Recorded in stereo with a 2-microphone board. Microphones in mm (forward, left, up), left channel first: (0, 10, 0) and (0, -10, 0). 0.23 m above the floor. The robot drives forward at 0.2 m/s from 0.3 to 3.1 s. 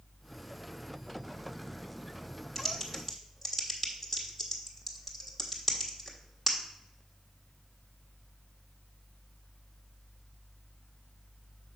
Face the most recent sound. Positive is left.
turn(degrees=0)  # may be behind; listen again after turning